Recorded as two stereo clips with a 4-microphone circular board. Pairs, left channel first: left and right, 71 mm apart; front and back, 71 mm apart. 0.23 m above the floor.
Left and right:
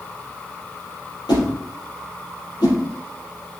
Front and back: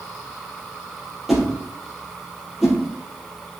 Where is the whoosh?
90° left, 3.5 m.